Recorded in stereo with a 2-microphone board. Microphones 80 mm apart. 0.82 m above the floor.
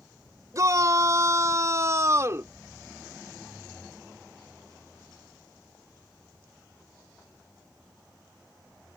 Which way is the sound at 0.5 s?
45° right (ahead or behind).